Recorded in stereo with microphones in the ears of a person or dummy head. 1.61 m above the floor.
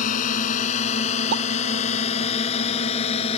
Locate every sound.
0.0 s a drone: 45° left (ahead or behind); by 3.4 s 35° left (ahead or behind)
1.3 s a pop: 55° right (ahead or behind)